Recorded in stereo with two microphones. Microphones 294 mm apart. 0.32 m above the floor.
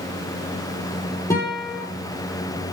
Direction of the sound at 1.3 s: 10° left (ahead or behind).